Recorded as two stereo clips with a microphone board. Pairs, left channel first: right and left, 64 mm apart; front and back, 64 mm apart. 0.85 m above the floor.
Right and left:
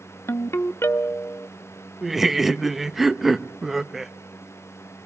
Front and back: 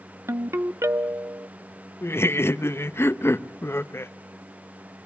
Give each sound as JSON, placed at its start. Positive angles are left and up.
{"t": 0.3, "sound": "a ringtone", "azimuth_deg": -135, "distance_m": 0.8}
{"t": 2.0, "sound": "laughter", "azimuth_deg": 5, "distance_m": 0.7}